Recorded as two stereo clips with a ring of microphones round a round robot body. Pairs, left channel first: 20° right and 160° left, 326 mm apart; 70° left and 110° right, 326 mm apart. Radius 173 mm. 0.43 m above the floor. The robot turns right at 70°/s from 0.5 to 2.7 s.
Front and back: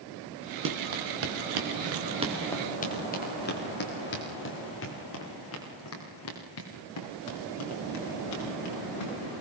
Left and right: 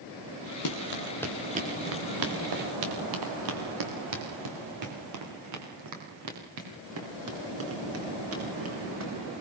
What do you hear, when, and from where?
0.7 s running footsteps: 105° left, 4.5 m; by 9.1 s 60° right, 11 m